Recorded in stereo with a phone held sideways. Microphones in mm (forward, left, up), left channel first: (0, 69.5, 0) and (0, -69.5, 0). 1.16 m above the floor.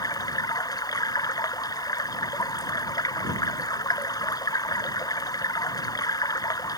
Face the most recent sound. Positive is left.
turn(degrees=25)  # may be behind; listen again after turning